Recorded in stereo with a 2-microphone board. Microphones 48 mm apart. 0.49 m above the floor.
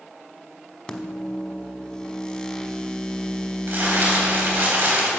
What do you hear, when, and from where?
0.9 s a microwave: 20° left (ahead or behind), 1.0 m
3.7 s crumpling: 60° right (ahead or behind), 3.5 m